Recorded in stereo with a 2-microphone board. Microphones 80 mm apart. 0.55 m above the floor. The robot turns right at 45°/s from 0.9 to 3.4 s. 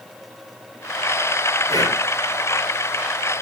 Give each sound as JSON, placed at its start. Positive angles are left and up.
{"t": 1.7, "sound": "breathing", "side_deg": 45, "distance_m": 6.0}